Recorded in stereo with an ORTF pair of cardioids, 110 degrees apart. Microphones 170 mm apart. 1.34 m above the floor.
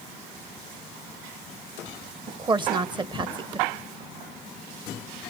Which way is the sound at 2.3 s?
25° right.